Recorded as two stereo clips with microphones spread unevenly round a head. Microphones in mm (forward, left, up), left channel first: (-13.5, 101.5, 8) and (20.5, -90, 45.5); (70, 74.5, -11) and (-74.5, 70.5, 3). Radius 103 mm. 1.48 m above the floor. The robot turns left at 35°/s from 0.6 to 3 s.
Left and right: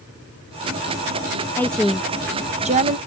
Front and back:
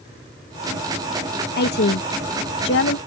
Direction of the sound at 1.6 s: 20° left.